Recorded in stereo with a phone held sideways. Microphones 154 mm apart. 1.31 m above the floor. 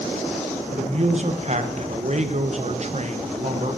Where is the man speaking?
50° right (ahead or behind), 1.0 m.